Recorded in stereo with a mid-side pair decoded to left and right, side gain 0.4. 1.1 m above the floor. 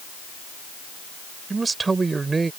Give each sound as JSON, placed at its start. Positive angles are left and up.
{"t": 1.5, "sound": "a man speaking", "azimuth_deg": -35}